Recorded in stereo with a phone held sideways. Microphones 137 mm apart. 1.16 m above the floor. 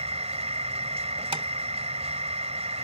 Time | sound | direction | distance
0.0 | a machine running | 50° right (ahead or behind) | ?
1.3 | tapping | 45° right (ahead or behind) | ?